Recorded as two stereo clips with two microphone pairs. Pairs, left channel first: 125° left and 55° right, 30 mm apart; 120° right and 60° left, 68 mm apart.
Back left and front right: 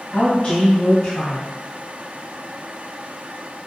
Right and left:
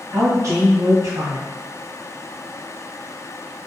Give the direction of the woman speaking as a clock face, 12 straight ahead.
9 o'clock.